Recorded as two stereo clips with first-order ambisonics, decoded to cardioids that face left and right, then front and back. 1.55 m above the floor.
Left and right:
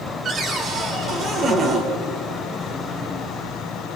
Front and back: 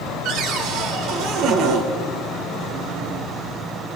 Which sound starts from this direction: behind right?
A cupboard door, at 0.2 s.